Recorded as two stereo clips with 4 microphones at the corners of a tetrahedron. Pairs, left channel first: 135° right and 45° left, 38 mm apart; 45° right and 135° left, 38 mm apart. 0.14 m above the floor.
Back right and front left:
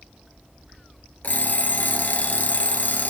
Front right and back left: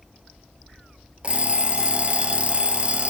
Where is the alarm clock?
170° right, 1.2 m.